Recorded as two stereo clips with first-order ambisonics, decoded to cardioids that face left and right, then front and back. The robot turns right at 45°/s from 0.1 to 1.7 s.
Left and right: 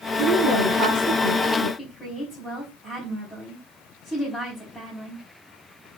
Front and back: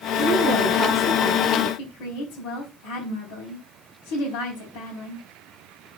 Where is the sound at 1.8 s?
Straight ahead, 4 m.